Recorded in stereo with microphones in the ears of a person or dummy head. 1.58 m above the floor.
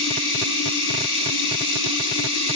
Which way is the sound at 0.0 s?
75° left (ahead or behind).